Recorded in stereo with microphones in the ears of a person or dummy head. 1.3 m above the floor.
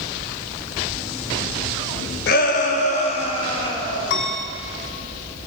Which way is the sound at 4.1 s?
60° left (ahead or behind).